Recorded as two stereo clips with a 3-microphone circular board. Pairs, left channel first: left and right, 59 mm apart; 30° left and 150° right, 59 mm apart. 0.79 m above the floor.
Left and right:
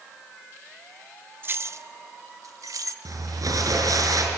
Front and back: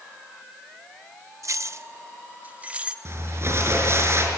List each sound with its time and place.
1.4 s keys jangling: 135° right, 0.7 m; by 3.0 s 80° right, 1.3 m
3.0 s crumpling: 105° right, 5.5 m